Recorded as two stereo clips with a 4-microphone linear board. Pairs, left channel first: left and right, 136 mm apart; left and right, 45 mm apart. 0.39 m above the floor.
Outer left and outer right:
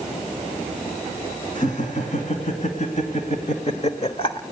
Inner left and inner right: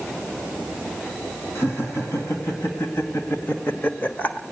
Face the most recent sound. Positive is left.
turn(degrees=35)  # may be behind; listen again after turning